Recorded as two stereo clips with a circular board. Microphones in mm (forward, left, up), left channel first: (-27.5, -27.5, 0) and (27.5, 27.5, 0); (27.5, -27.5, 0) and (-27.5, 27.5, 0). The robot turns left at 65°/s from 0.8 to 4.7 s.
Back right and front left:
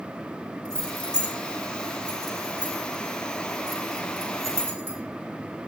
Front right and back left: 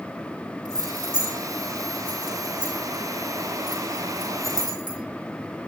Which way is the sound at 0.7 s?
125° right.